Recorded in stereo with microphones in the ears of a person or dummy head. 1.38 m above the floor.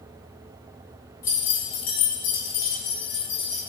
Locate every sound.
1.2 s keys jangling: 15° left (ahead or behind), 0.6 m; by 3.6 s 50° left (ahead or behind), 1.6 m